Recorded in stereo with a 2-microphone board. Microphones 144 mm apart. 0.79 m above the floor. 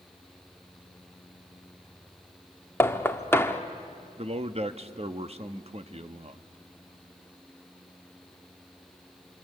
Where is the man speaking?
45° right (ahead or behind), 1.0 m.